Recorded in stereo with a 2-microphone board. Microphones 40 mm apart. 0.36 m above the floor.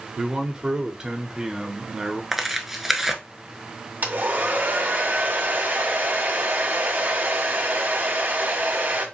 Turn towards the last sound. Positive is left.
turn(degrees=-45)  # may be behind; listen again after turning